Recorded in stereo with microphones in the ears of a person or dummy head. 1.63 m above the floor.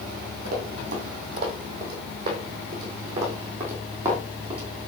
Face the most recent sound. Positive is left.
turn(degrees=-5)  # may be behind; listen again after turning